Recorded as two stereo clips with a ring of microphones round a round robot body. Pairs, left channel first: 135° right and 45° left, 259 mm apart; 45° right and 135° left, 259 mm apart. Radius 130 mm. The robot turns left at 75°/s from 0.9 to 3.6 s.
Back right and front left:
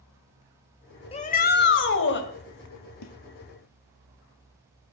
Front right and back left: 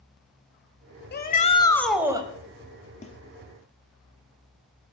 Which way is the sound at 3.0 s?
110° right.